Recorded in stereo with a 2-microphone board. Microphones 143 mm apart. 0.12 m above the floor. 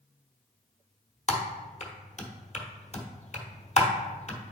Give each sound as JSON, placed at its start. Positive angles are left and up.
{"t": 1.3, "sound": "typing on a keyboard", "side_deg": 55, "distance_m": 1.2}